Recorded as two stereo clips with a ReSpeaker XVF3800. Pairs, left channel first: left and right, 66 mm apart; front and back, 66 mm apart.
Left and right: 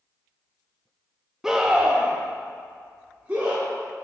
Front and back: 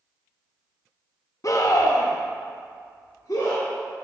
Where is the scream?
10° right, 0.7 m; by 3.6 s 30° right, 2.0 m.